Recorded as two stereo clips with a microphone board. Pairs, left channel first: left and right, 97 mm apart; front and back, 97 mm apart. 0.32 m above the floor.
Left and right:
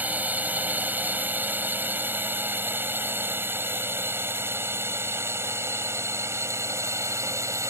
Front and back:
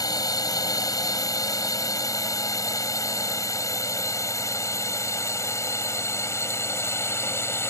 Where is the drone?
25° right; by 7.7 s 50° right.